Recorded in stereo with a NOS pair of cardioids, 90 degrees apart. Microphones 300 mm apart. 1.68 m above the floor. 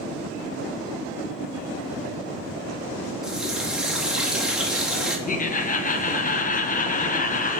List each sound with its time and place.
3.2 s a running tap: straight ahead, 2 m
5.3 s laughter: 30° left, 1.3 m